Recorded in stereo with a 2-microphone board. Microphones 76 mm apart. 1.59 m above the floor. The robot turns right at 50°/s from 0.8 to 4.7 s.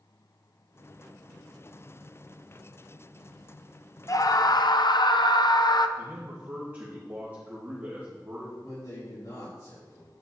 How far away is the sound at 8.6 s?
About 4 m.